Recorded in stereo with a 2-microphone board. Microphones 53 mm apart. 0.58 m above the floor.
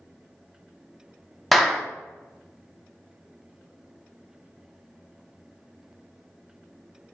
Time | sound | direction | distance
1.5 | a clap | centre (ahead or behind) | 0.5 m